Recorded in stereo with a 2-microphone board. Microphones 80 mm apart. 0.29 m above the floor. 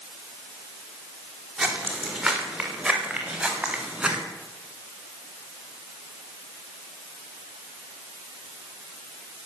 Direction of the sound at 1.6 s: Centre (ahead or behind).